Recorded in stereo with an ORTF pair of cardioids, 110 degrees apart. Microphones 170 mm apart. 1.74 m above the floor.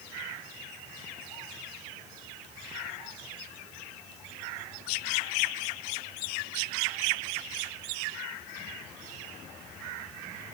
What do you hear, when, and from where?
Only background noise.